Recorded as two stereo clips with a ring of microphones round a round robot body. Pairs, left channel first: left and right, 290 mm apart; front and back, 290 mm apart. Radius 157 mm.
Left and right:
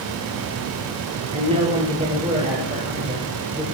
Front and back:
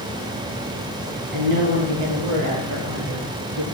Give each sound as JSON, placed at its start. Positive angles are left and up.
{"t": 1.3, "sound": "a woman speaking", "azimuth_deg": -160, "distance_m": 5.5}